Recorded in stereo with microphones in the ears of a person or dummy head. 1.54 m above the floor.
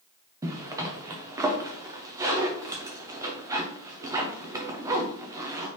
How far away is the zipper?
About 0.7 m.